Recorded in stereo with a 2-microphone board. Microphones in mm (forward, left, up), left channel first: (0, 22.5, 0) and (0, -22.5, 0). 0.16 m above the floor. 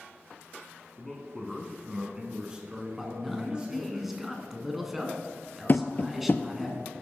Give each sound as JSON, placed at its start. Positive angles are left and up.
{"t": 1.0, "sound": "a man speaking", "side_deg": 5, "distance_m": 1.6}
{"t": 3.0, "sound": "a man speaking", "side_deg": -5, "distance_m": 1.5}
{"t": 5.7, "sound": "tapping", "side_deg": 45, "distance_m": 0.5}